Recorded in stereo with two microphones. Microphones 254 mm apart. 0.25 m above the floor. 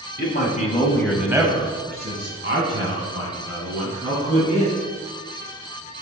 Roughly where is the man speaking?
Left.